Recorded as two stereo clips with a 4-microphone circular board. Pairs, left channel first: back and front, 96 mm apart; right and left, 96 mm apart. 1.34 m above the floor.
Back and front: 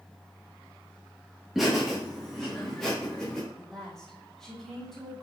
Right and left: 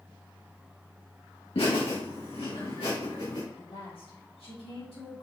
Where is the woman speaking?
95° right, 3 m.